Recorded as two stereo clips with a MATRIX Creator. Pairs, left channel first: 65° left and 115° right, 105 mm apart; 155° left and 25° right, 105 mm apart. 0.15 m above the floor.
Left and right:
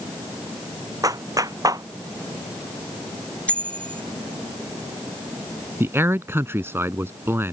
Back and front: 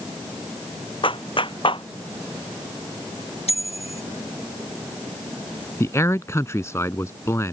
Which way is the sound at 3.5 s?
145° left.